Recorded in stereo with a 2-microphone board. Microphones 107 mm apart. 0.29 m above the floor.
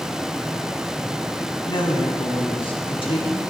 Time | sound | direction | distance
1.7 | a woman speaking | 50° left (ahead or behind) | 1.6 m